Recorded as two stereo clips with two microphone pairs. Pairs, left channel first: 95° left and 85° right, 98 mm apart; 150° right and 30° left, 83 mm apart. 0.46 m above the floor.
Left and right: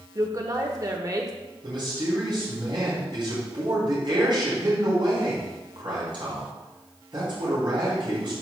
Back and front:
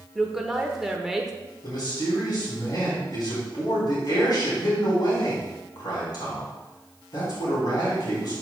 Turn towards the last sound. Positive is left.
turn(degrees=-120)